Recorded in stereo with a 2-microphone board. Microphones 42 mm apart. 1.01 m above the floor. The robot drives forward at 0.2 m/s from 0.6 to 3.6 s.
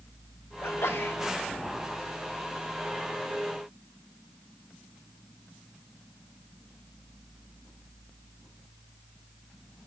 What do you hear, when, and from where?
0.6 s a sneeze: 75° left (ahead or behind), 2.0 m; by 1.2 s 70° left (ahead or behind), 2.0 m